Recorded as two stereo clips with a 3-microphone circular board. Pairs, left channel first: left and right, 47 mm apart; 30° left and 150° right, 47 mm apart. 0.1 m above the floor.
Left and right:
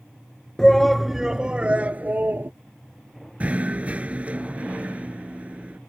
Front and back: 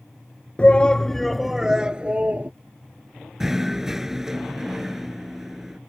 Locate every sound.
0.6 s a shout: 25° left; by 2.5 s 110° right
3.4 s knocking: 75° right